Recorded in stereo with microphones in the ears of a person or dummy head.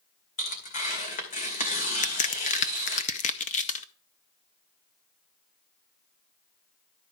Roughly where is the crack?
Left.